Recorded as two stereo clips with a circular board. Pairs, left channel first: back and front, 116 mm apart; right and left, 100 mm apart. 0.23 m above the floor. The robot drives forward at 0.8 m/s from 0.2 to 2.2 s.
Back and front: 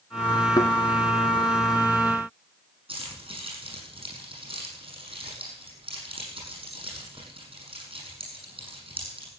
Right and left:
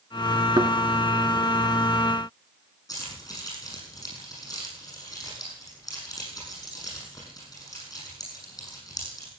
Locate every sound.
0.6 s a thud: 130° left, 1.2 m; by 0.7 s 135° left, 1.3 m
2.9 s keys jangling: 35° right, 6.5 m